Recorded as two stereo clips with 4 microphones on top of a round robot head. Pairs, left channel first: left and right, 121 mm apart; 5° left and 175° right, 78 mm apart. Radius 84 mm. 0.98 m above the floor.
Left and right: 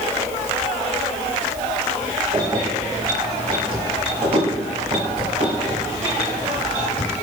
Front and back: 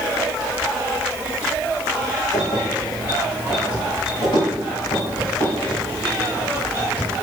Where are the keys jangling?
30° right, 3.5 m; by 7.1 s 65° right, 5.5 m.